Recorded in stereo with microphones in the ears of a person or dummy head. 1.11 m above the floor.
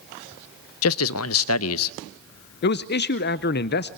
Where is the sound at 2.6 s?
50° left (ahead or behind), 0.6 m.